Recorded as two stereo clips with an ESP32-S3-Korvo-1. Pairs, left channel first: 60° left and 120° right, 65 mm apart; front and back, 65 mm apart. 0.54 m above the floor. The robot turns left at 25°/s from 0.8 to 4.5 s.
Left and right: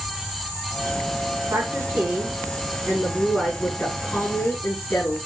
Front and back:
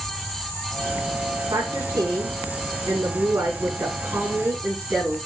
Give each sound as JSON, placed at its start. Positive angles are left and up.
{"t": 1.5, "sound": "a woman speaking", "azimuth_deg": -165, "distance_m": 5.5}